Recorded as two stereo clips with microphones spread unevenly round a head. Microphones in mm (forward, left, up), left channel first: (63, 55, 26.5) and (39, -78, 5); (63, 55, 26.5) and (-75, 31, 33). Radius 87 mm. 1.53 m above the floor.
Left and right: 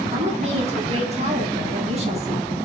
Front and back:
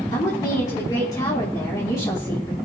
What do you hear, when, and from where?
0.1 s a woman speaking: 60° right, 4.5 m